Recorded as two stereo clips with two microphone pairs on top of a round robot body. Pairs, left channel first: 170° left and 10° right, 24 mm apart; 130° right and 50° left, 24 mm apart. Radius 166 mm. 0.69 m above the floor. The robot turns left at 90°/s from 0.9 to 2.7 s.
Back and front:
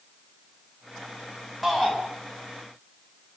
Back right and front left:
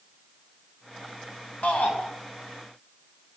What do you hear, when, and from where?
1.6 s a shout: 100° right, 6 m; by 2.0 s 130° right, 6 m